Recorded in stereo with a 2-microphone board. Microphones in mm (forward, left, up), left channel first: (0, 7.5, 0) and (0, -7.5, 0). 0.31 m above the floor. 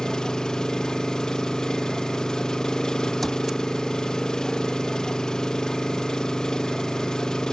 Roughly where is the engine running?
Left.